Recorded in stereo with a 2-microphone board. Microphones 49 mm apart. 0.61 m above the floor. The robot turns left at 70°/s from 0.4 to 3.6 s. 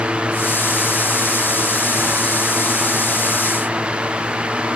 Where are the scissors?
No scissors in this recording.